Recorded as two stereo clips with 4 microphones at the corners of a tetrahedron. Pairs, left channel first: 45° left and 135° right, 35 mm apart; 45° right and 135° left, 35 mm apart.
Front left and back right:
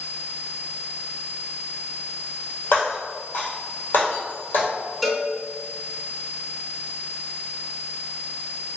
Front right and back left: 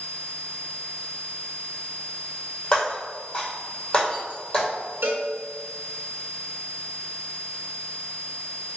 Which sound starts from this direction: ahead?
Breaking glass, at 2.7 s.